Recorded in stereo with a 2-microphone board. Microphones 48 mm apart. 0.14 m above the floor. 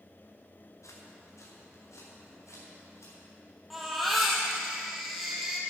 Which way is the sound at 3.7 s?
Centre (ahead or behind).